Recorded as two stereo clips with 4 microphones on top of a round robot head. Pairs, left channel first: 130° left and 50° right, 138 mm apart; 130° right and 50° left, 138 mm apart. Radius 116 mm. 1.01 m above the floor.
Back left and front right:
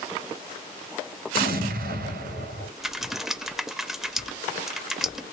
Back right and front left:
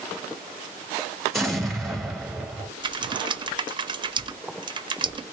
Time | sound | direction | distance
1.3 | an explosion | 40° right | 1.4 m
2.8 | typing on a keyboard | 40° left | 0.6 m